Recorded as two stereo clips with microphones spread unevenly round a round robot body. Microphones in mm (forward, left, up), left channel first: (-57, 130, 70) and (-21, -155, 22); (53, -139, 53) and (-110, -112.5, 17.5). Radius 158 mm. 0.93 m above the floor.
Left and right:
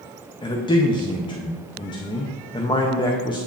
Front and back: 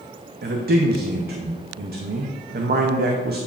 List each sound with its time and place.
0.4 s a man speaking: 175° left, 0.7 m